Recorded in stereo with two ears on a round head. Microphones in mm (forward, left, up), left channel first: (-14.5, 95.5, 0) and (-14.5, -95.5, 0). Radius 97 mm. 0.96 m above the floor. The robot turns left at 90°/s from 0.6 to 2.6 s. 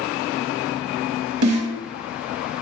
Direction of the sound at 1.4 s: 70° right (ahead or behind).